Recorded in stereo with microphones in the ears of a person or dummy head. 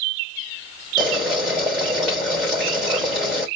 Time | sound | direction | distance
1.0 | boiling | 5° right (ahead or behind) | 3 m